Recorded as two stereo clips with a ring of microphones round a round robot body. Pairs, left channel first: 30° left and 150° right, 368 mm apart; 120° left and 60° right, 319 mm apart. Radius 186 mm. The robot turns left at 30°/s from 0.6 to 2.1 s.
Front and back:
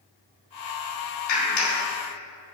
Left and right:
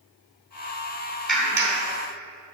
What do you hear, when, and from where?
1.3 s a clap: 30° left, 2.5 m; by 1.8 s 15° left, 2.5 m